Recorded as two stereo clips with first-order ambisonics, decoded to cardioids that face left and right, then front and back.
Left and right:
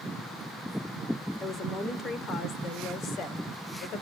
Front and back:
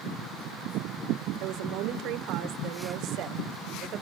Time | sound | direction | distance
1.4 | a woman speaking | 160° left | 3 m